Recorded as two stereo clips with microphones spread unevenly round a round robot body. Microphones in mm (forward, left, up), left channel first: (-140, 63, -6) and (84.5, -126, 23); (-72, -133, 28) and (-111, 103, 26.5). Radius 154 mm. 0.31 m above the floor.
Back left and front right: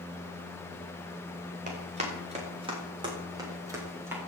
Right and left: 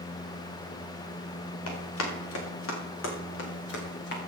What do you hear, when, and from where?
1.7 s running footsteps: 105° right, 7 m; by 4.2 s 125° right, 7 m